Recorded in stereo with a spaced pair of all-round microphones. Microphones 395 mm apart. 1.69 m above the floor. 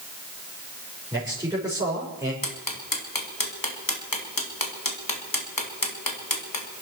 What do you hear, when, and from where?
1.1 s a man speaking: 10° right (ahead or behind), 4.5 m
2.4 s ticking: 55° left (ahead or behind), 2.5 m